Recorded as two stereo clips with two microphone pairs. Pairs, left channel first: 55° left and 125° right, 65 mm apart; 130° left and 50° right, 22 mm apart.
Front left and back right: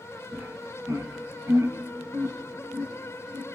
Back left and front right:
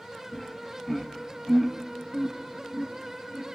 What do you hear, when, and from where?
0.3 s laughter: 135° right, 1.0 m; by 3.5 s 120° right, 2.5 m